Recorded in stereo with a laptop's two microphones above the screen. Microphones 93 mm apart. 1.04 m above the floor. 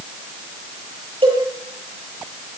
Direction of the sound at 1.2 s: 80° right.